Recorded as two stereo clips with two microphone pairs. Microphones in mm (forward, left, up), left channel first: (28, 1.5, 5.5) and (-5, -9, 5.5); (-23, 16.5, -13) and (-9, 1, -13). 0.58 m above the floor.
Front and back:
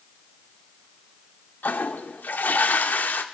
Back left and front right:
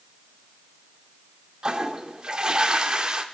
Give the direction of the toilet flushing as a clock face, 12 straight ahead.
12 o'clock.